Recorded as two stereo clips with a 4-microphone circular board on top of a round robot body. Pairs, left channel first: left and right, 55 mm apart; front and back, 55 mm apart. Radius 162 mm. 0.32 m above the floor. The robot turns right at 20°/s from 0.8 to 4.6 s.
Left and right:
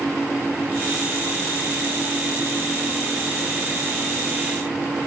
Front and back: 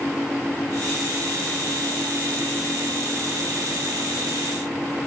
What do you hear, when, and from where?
Only background noise.